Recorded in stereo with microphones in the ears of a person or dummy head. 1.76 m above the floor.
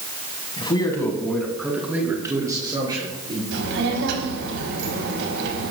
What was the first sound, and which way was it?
A man speaking, 30° left (ahead or behind).